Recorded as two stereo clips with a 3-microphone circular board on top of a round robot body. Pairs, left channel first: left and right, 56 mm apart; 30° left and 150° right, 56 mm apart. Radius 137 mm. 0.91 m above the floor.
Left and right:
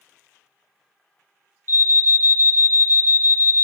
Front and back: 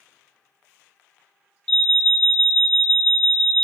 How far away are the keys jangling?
I don't hear keys jangling.